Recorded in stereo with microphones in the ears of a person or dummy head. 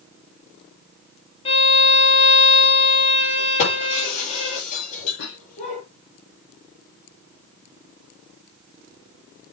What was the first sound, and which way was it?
A violin, 35° left (ahead or behind).